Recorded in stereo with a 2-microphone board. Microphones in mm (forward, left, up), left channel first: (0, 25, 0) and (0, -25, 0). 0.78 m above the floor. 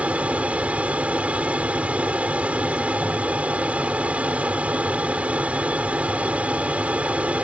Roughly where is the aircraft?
Right.